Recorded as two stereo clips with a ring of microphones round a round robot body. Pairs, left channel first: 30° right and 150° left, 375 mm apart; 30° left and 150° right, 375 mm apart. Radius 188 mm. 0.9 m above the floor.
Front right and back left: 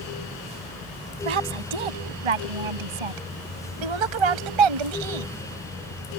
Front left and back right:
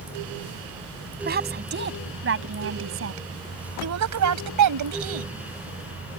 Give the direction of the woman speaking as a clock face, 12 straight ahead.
7 o'clock.